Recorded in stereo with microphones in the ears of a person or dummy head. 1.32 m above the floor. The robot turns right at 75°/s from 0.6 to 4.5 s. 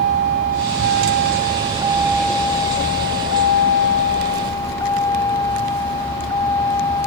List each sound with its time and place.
0.0 s a vehicle: 125° right; by 7.1 s 170° left